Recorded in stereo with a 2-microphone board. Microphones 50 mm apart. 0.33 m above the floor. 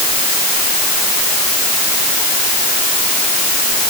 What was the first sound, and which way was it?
Only background noise.